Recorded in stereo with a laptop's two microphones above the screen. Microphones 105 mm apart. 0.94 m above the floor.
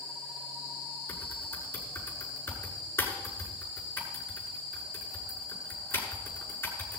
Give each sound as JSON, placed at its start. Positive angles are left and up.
{"t": 1.1, "sound": "typing on a keyboard", "side_deg": 25, "distance_m": 7.0}